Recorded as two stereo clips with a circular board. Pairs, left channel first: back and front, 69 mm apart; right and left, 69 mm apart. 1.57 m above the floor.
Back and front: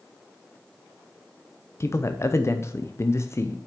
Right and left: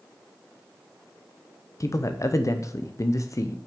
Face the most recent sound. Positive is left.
turn(degrees=-130)